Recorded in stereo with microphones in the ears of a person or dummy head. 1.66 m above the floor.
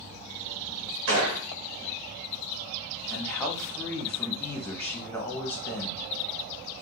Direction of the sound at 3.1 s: 10° left (ahead or behind).